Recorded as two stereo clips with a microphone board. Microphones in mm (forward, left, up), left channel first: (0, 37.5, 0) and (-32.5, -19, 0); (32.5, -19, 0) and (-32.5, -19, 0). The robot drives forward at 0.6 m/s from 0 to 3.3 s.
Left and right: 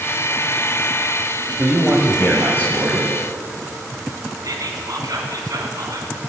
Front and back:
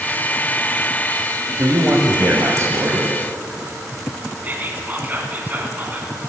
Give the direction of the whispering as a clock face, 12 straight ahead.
4 o'clock.